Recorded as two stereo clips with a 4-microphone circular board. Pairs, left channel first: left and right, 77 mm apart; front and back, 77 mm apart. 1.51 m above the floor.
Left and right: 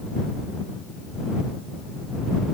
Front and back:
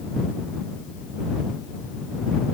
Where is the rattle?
I don't hear a rattle.